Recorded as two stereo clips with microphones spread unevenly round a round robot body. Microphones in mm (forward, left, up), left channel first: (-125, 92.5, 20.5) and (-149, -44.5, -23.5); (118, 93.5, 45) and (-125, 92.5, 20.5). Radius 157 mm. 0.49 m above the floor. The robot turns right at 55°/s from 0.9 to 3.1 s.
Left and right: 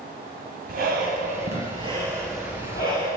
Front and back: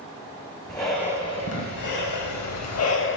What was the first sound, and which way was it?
Breathing, 80° right.